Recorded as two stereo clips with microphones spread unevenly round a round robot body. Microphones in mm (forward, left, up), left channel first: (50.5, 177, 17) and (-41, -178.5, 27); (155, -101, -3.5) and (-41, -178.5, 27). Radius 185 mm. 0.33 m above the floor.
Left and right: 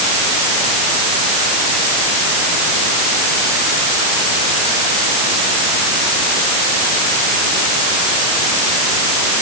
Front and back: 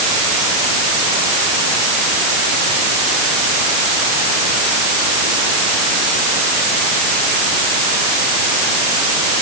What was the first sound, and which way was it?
Only background noise.